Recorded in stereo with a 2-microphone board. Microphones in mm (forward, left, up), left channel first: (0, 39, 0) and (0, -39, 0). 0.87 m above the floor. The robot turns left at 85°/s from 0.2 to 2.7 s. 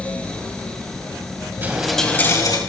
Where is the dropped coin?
155° right, 3 m; by 2.6 s 120° left, 3 m.